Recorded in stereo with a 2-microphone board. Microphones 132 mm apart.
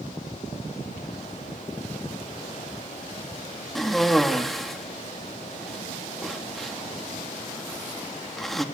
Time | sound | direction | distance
3.8 | a cough | centre (ahead or behind) | 1.9 m